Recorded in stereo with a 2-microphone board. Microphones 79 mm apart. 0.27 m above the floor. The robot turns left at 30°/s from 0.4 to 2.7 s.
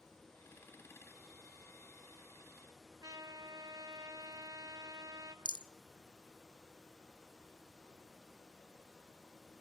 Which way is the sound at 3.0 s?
50° right (ahead or behind).